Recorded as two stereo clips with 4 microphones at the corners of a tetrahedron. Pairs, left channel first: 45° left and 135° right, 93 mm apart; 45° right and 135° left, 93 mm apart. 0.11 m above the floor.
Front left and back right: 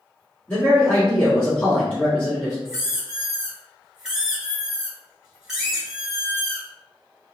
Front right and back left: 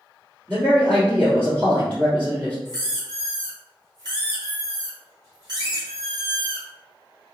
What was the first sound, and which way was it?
A man speaking, 100° left.